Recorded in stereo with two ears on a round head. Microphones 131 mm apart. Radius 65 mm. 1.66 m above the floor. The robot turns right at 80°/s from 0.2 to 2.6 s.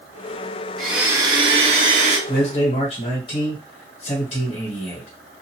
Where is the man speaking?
65° left (ahead or behind), 1.4 m; by 5.1 s 40° left (ahead or behind), 1.4 m.